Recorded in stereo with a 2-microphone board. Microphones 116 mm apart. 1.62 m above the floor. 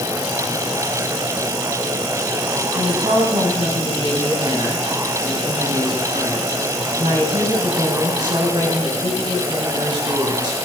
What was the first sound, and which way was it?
A woman speaking, 40° right (ahead or behind).